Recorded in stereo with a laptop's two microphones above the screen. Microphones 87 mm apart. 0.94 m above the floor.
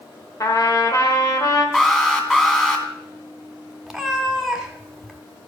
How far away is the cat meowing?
About 1.4 m.